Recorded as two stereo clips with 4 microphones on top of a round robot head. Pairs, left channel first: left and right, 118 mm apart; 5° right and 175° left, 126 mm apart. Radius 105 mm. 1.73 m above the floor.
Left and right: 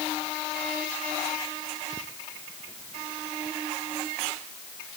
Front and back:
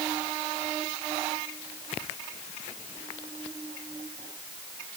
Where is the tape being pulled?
I don't hear tape being pulled.